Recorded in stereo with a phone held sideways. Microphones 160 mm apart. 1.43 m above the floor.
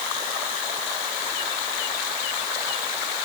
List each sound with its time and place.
Only background noise.